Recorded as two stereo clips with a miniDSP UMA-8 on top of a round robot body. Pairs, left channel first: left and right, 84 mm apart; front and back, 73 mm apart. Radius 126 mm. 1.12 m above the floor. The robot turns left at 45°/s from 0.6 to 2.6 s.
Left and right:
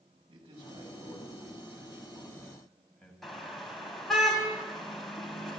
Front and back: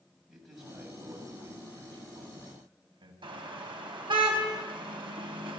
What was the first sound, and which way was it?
A man speaking, 95° right.